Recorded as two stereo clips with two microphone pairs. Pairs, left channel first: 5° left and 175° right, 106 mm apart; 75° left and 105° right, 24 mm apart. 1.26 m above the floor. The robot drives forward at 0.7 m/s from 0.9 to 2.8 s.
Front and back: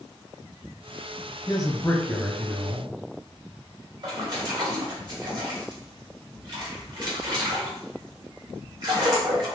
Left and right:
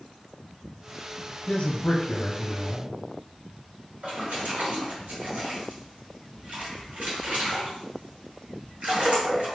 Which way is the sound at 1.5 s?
45° left.